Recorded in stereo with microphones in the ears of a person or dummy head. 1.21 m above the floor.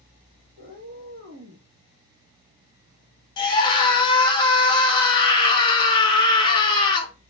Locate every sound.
0.6 s a cat meowing: 40° right (ahead or behind), 0.9 m
3.4 s a scream: 25° left (ahead or behind), 0.6 m